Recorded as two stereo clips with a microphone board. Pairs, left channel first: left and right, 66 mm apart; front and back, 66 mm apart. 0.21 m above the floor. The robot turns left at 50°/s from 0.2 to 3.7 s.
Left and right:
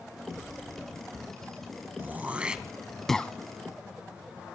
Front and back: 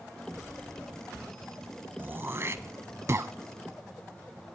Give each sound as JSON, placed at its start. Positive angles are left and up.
{"t": 2.0, "sound": "throat clearing", "azimuth_deg": -135, "distance_m": 0.7}